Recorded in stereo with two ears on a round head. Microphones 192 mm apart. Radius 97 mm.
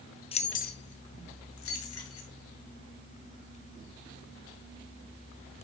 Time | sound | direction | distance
0.3 | keys jangling | 25° left (ahead or behind) | 1.0 m